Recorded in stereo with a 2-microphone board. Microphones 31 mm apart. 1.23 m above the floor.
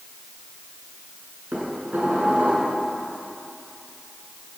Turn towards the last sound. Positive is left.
turn(degrees=-75)  # may be behind; listen again after turning